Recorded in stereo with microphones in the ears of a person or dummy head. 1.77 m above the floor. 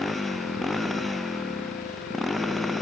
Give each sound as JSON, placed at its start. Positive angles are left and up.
{"t": 0.0, "sound": "a motorcycle", "side_deg": 5}